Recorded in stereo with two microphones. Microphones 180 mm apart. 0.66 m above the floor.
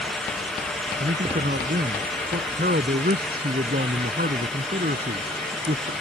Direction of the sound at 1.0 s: 55° right (ahead or behind).